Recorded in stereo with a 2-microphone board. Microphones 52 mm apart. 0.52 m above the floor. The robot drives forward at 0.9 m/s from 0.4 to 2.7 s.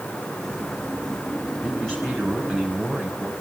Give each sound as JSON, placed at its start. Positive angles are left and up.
{"t": 1.6, "sound": "a man speaking", "side_deg": 10, "distance_m": 5.5}